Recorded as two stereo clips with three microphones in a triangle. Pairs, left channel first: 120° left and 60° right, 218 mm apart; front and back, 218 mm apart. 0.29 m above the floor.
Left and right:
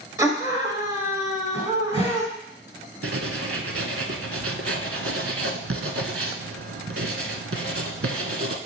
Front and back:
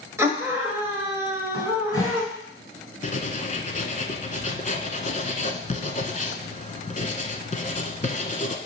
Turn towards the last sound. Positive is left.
turn(degrees=-55)